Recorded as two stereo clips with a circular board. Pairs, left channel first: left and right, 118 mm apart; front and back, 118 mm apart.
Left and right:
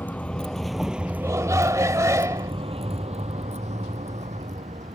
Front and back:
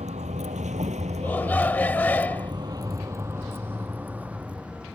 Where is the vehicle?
165° left; by 4.9 s 95° right.